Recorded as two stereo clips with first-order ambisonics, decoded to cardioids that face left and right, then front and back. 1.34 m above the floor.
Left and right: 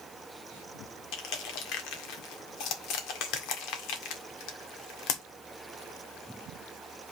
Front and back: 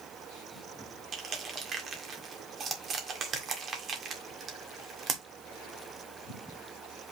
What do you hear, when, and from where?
1.1 s crushing: 115° left, 1.7 m